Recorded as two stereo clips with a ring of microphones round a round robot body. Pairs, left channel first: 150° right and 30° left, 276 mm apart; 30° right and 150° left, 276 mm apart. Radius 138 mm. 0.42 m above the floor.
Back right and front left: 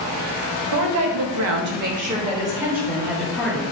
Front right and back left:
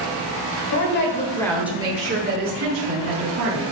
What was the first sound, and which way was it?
A woman speaking, 5° left.